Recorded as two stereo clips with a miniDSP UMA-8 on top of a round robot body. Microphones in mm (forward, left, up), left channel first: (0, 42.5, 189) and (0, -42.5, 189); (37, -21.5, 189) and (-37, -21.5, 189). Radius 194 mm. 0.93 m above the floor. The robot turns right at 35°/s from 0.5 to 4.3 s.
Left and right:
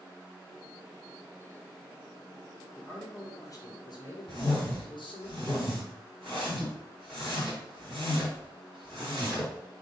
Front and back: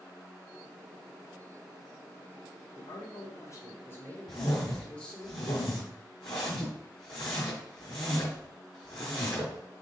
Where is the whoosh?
15° left, 0.6 m.